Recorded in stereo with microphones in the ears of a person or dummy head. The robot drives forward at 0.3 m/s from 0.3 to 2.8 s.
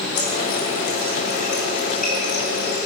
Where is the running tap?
5° left (ahead or behind), 1.8 m.